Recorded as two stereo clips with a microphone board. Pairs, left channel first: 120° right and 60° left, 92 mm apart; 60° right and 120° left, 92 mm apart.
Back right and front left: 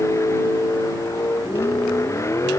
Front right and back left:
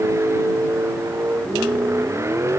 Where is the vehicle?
Straight behind.